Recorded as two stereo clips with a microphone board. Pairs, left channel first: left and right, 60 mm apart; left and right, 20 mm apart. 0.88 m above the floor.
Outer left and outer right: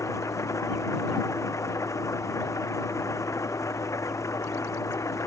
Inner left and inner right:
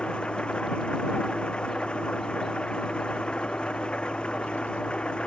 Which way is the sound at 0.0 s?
60° left (ahead or behind).